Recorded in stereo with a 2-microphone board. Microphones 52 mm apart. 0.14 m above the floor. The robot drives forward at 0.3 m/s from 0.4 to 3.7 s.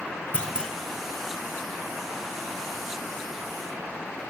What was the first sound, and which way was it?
A clunk, 20° left (ahead or behind).